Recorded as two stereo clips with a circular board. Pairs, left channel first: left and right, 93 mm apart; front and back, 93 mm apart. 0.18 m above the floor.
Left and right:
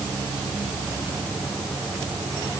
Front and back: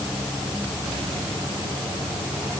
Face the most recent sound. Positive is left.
No sound to turn to.